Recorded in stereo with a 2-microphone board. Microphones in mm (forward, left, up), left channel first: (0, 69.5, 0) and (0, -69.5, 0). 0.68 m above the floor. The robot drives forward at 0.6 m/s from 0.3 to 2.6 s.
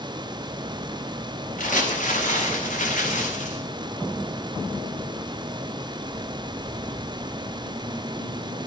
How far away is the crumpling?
About 6 m.